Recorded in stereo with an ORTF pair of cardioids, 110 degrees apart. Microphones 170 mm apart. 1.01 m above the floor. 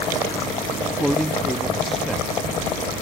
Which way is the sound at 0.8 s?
Straight ahead.